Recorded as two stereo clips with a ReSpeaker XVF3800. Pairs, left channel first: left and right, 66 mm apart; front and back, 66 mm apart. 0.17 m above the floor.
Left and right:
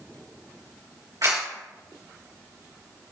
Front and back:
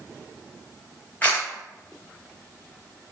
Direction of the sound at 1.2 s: 65° right.